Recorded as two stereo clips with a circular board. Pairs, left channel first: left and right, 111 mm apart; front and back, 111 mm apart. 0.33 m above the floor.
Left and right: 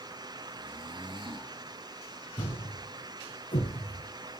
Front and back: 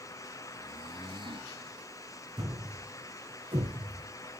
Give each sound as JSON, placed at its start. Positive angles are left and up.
{"t": 0.6, "sound": "snoring", "azimuth_deg": -135, "distance_m": 1.9}
{"t": 2.4, "sound": "a thud", "azimuth_deg": 140, "distance_m": 4.0}